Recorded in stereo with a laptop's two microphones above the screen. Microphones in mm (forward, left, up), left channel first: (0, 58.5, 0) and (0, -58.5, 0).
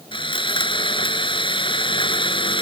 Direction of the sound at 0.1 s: 45° left (ahead or behind).